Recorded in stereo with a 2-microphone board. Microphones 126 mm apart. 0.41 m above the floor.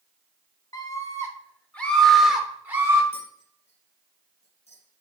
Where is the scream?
30° left (ahead or behind), 1.6 m; by 3.0 s 20° right (ahead or behind), 1.3 m.